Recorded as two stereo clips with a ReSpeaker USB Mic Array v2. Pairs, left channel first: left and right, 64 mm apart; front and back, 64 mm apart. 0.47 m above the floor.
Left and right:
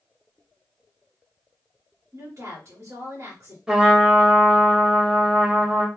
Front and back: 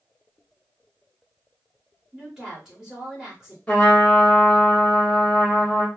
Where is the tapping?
No tapping in this recording.